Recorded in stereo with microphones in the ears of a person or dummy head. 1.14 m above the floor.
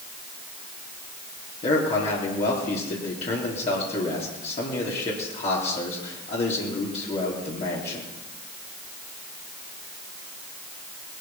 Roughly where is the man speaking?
Left.